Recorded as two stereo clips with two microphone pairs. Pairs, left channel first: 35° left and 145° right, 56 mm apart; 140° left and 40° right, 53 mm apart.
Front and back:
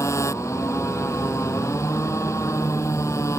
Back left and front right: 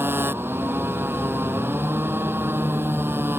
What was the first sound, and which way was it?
A motorcycle, 5° left.